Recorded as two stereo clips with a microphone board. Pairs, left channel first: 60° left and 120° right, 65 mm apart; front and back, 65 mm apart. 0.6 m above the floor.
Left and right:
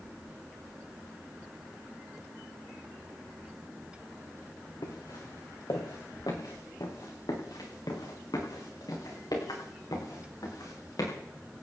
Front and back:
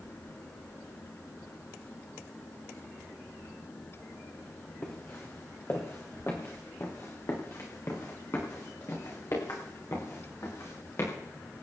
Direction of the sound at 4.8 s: 55° left.